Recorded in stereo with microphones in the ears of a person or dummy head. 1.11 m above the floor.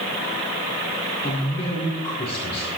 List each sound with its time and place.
1.2 s a man speaking: 30° left (ahead or behind), 4 m